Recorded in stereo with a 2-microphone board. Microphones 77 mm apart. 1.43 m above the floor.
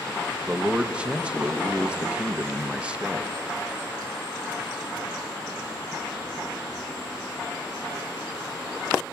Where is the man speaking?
15° right (ahead or behind), 1.0 m.